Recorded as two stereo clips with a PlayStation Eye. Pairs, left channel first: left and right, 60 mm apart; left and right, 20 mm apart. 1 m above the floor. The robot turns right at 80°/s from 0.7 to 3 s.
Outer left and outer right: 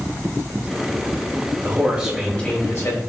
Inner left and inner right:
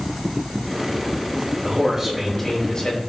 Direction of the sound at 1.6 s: 45° right.